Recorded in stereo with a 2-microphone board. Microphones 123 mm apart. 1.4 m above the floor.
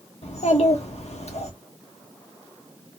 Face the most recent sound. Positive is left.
turn(degrees=55)  # may be behind; listen again after turning